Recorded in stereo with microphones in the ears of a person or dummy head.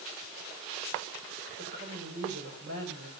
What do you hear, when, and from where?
1.6 s a woman speaking: 60° right (ahead or behind), 6.5 m